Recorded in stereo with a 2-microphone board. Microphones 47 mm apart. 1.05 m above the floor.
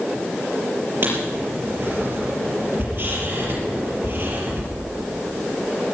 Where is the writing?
55° right (ahead or behind), 5.5 m.